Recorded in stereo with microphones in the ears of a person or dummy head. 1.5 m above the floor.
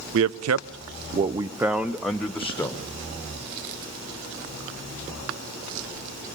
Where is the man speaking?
65° right (ahead or behind), 0.7 m; by 2.9 s 10° left (ahead or behind), 1.6 m.